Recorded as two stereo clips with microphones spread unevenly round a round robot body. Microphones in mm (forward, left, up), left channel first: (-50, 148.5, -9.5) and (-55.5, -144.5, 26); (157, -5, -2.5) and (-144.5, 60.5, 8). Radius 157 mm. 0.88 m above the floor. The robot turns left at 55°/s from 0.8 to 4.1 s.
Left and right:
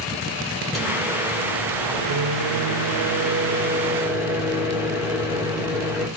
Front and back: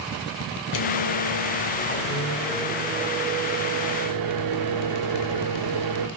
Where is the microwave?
5° left, 0.6 m; by 6.1 s straight behind, 0.6 m.